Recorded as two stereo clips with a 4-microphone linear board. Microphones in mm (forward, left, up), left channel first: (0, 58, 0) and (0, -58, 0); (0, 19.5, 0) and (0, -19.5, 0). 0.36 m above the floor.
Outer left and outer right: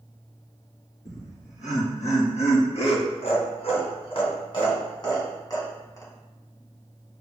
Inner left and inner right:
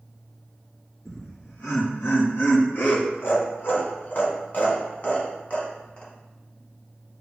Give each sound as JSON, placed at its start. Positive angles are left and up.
{"t": 1.1, "sound": "laughter", "side_deg": 75, "distance_m": 3.5}